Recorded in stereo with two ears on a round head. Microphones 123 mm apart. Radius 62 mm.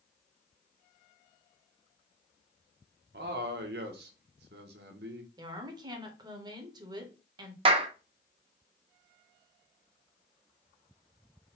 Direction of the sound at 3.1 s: 80° right.